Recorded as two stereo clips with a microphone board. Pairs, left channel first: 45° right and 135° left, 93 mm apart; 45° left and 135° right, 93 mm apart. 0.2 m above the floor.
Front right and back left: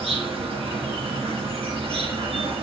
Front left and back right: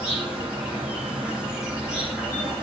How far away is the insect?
About 6 m.